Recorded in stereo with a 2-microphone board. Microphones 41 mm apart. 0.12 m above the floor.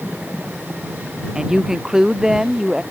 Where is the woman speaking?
15° right (ahead or behind); by 2.8 s 10° right (ahead or behind).